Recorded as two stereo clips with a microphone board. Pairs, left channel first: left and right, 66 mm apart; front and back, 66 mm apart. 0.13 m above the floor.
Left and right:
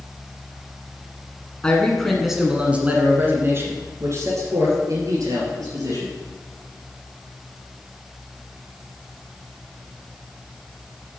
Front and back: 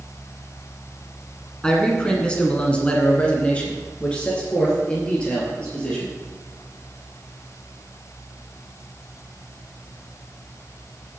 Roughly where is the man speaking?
Ahead left.